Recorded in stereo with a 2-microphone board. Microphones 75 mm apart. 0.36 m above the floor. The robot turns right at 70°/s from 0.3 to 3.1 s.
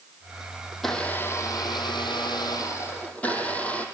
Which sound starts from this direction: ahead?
A blender, at 0.7 s.